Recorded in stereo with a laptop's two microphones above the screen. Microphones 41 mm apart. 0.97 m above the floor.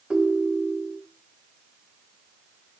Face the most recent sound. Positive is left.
turn(degrees=-25)  # may be behind; listen again after turning